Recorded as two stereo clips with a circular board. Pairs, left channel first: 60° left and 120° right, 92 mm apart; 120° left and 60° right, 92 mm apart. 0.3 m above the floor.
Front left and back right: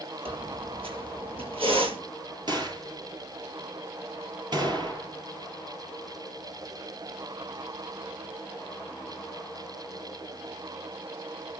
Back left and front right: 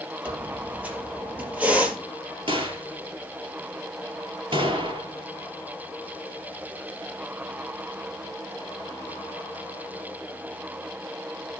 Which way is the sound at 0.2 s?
135° right.